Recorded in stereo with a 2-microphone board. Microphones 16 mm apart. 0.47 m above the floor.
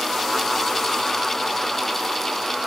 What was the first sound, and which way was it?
Only background noise.